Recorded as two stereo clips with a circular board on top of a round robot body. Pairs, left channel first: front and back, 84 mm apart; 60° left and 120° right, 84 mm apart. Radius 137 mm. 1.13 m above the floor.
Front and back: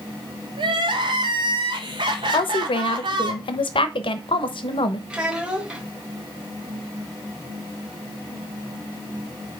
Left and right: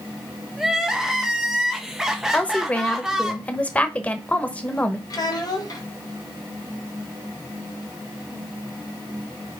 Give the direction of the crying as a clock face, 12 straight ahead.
7 o'clock.